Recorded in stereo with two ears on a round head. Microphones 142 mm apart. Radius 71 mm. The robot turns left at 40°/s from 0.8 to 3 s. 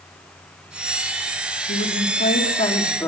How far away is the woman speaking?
About 3 m.